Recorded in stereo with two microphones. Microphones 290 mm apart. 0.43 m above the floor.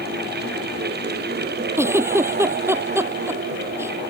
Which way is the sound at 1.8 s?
10° right (ahead or behind).